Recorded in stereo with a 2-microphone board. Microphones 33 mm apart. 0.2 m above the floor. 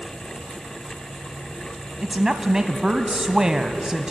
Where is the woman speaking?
20° right (ahead or behind), 1.1 m.